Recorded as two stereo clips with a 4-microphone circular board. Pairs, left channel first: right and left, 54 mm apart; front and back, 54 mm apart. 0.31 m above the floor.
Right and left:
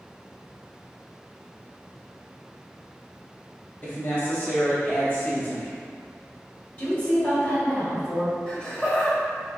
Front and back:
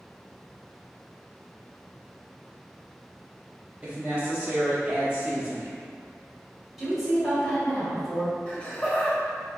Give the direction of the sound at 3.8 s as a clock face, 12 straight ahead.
4 o'clock.